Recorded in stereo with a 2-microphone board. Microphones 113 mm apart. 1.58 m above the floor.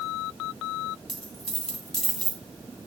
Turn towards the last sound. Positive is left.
turn(degrees=5)  # may be behind; listen again after turning